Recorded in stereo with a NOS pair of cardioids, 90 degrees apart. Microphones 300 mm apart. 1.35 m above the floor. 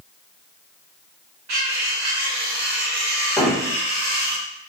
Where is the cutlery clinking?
60° right, 1.4 m.